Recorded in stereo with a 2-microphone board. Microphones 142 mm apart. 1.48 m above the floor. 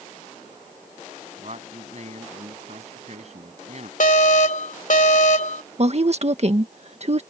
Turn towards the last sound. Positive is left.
turn(degrees=-50)  # may be behind; listen again after turning